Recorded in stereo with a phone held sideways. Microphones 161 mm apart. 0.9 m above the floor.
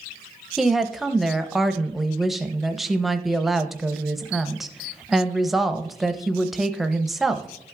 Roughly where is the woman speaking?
Centre.